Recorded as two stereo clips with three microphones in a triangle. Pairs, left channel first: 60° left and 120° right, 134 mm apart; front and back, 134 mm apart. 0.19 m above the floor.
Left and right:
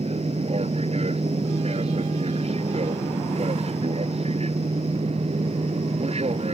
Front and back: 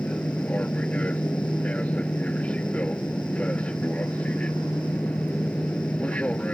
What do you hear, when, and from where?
0.0 s an aircraft: 80° right